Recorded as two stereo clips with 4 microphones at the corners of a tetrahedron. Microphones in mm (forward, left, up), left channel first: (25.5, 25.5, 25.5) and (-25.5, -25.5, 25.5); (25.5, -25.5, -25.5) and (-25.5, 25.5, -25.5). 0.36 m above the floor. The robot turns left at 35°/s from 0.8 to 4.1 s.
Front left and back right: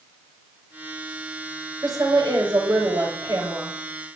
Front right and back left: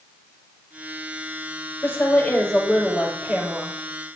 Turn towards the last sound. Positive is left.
turn(degrees=175)